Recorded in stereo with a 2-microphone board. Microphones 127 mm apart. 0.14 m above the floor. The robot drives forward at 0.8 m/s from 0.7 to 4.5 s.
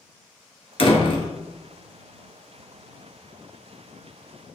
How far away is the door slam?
About 1.5 m.